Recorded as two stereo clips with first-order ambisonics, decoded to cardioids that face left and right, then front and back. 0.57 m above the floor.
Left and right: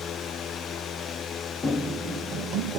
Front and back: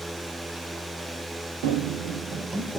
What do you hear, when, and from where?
1.6 s running footsteps: 175° left, 1.5 m; by 2.8 s 95° right, 1.1 m